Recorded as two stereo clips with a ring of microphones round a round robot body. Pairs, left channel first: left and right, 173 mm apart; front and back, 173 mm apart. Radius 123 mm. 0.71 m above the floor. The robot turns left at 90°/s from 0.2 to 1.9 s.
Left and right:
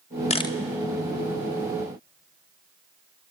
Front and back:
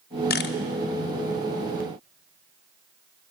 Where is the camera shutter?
35° left, 0.5 m; by 0.6 s 10° left, 0.5 m.